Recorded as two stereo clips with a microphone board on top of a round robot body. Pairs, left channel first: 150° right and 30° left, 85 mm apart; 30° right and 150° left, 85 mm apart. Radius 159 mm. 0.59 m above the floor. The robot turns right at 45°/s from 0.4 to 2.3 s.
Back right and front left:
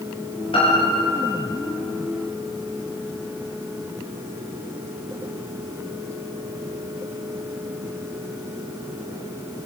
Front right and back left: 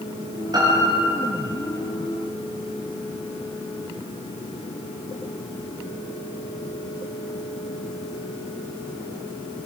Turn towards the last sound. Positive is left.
turn(degrees=-85)